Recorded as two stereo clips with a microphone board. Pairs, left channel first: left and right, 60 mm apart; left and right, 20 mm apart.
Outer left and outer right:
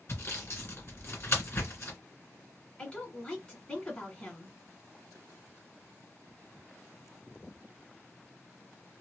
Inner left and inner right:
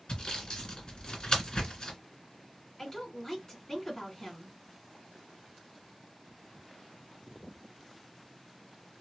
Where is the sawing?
45° left (ahead or behind), 1.9 m.